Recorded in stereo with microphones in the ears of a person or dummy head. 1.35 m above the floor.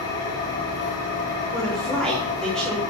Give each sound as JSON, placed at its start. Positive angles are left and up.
{"t": 0.0, "sound": "an engine running", "side_deg": 65, "distance_m": 4.0}
{"t": 1.5, "sound": "a woman speaking", "side_deg": 0, "distance_m": 3.0}